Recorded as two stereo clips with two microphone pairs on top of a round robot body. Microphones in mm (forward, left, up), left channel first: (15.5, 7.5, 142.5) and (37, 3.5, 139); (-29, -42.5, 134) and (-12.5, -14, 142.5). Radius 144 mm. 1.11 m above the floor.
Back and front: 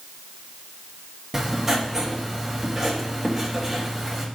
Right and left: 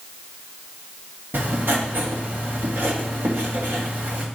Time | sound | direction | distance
1.3 | writing | 65° left | 1.7 m